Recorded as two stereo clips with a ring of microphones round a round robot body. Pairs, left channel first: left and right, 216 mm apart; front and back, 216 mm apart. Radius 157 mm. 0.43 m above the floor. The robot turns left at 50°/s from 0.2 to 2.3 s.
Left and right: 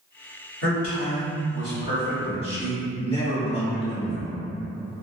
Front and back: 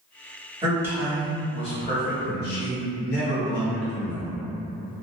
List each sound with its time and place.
0.6 s a man speaking: 115° left, 1.5 m; by 4.3 s 30° left, 1.5 m